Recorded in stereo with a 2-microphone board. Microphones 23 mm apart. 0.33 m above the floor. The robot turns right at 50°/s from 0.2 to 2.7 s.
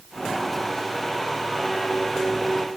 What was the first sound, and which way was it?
Only background noise.